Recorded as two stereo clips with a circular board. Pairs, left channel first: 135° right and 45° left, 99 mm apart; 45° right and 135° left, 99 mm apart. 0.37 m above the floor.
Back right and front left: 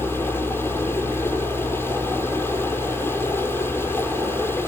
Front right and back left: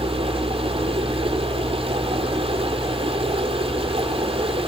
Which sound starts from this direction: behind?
Running water, at 0.0 s.